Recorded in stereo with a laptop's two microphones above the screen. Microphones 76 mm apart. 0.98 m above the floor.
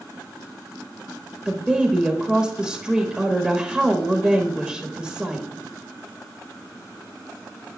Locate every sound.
1.4 s a woman speaking: 5° right (ahead or behind), 1.2 m